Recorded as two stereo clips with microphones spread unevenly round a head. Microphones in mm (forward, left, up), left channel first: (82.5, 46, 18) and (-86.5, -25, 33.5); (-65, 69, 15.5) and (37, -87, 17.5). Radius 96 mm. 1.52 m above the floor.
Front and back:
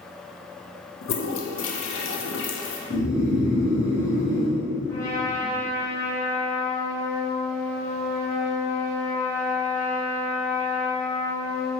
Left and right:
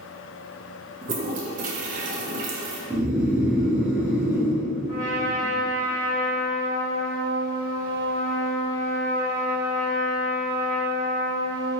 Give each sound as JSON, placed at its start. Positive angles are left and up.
{"t": 1.0, "sound": "a toilet flushing", "azimuth_deg": -5, "distance_m": 0.5}
{"t": 2.9, "sound": "snoring", "azimuth_deg": 15, "distance_m": 1.0}
{"t": 4.9, "sound": "a trumpet", "azimuth_deg": 95, "distance_m": 1.6}